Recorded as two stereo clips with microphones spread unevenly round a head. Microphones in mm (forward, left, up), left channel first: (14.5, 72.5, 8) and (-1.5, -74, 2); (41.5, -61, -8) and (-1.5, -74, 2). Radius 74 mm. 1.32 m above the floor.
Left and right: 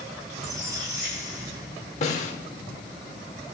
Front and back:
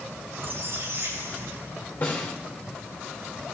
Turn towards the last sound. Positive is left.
turn(degrees=80)